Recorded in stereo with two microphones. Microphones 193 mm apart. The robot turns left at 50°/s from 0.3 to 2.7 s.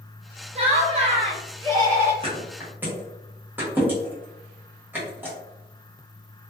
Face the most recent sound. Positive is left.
turn(degrees=-10)  # may be behind; listen again after turning